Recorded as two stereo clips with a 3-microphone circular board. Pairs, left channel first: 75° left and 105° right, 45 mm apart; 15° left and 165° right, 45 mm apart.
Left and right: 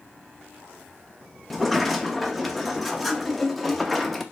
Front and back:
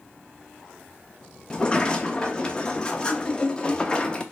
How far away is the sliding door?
About 0.6 m.